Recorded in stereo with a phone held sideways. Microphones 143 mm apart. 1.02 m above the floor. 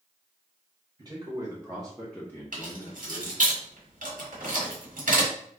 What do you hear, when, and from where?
1.0 s a man speaking: 25° right (ahead or behind), 1.0 m; by 3.5 s 65° left (ahead or behind), 0.7 m
2.5 s keys jangling: 75° right (ahead or behind), 1.3 m